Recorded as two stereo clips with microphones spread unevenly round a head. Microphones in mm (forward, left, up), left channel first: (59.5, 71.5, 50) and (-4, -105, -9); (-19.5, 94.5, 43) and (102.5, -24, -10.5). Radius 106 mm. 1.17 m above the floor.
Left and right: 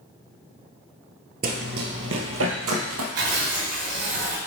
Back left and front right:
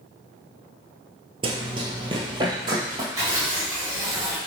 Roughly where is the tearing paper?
Behind right.